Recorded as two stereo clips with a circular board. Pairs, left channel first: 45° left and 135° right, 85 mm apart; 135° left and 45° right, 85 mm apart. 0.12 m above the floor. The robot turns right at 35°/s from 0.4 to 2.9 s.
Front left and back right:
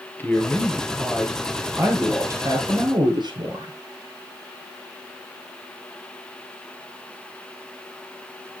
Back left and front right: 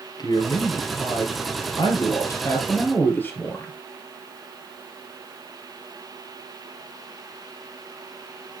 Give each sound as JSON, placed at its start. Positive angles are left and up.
{"t": 0.2, "sound": "a man speaking", "azimuth_deg": 115, "distance_m": 3.0}